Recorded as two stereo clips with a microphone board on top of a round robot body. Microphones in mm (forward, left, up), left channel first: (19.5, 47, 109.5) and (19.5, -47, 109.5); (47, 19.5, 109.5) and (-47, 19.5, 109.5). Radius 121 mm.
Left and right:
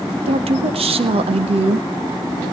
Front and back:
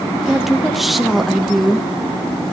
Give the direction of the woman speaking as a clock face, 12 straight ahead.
3 o'clock.